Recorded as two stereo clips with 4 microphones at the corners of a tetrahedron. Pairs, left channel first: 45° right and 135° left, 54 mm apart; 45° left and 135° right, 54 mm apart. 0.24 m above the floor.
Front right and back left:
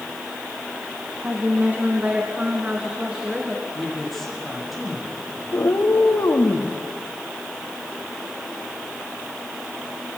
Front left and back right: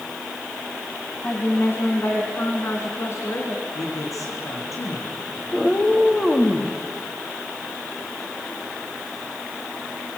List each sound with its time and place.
1.2 s a woman speaking: 90° left, 2 m; by 3.6 s 65° left, 3.5 m
3.8 s a man speaking: 45° left, 6 m
5.5 s a cat meowing: 35° right, 3.5 m